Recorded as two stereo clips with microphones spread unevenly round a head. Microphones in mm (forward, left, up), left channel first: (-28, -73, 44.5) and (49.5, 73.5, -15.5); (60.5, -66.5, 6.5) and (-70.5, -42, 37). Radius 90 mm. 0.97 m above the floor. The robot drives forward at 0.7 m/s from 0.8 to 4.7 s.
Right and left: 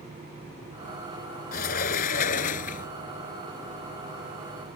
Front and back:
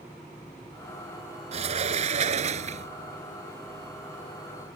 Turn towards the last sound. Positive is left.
turn(degrees=-165)